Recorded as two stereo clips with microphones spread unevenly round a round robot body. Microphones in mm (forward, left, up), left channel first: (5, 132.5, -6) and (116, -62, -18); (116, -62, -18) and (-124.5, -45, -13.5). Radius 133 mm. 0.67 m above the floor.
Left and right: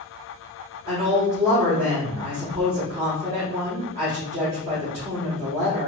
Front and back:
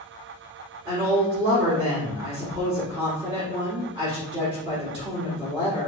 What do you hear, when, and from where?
0.8 s a woman speaking: 110° right, 2.5 m